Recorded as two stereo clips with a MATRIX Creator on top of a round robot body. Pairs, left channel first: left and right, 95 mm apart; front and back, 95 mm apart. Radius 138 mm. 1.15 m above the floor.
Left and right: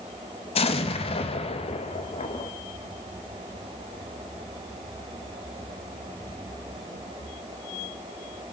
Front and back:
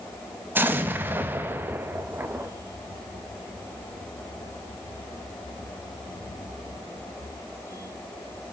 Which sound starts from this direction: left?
An explosion, at 0.6 s.